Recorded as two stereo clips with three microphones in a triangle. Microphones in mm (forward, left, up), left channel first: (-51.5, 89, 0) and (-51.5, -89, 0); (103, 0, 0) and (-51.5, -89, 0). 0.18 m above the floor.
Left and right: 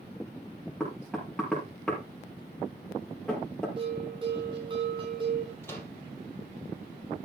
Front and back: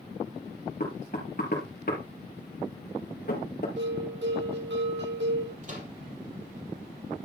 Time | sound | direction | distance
0.8 | knocking | 5° left | 4 m
3.8 | a bell | 150° right | 4.5 m
5.6 | a microwave | 165° left | 3.5 m